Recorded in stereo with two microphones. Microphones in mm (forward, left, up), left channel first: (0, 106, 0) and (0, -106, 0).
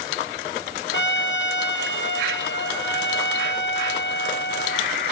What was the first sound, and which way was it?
A trumpet, 60° left (ahead or behind).